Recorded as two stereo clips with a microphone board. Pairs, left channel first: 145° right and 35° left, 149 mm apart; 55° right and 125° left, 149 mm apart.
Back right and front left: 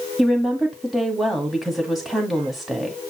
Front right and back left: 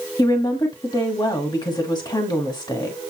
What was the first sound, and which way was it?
A woman speaking, 55° right.